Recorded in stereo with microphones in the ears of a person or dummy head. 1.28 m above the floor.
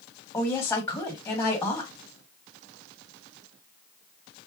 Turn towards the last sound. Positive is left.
turn(degrees=15)  # may be behind; listen again after turning